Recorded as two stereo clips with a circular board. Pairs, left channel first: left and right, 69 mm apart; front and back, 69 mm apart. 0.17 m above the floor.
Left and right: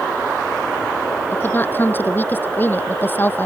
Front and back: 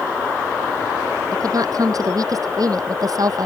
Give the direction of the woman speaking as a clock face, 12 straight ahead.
7 o'clock.